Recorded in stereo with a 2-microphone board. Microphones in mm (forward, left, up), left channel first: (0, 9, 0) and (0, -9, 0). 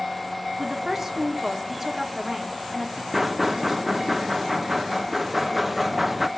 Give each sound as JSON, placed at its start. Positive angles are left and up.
{"t": 0.6, "sound": "a woman speaking", "side_deg": -20, "distance_m": 2.5}
{"t": 3.1, "sound": "knocking", "side_deg": -10, "distance_m": 0.7}